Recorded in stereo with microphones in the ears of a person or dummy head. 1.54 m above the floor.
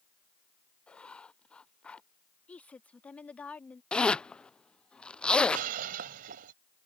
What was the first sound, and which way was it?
Writing, 5° left (ahead or behind).